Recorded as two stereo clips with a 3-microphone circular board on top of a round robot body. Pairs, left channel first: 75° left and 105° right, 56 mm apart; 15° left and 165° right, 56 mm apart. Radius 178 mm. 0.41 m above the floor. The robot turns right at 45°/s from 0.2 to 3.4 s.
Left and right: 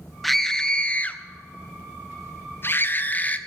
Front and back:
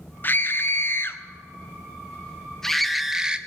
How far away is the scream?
About 1.5 m.